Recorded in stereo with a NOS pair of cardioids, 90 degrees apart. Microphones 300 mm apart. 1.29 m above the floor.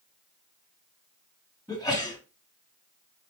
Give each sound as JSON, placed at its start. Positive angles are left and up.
{"t": 1.7, "sound": "a sneeze", "azimuth_deg": 10, "distance_m": 3.0}